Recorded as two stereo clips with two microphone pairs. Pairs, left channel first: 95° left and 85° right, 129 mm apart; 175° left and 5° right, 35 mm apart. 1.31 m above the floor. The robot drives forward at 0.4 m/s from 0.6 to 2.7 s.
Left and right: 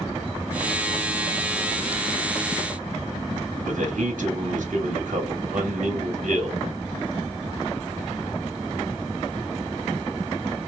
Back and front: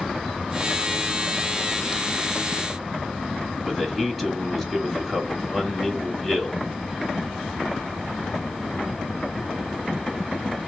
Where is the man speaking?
95° right, 1.8 m.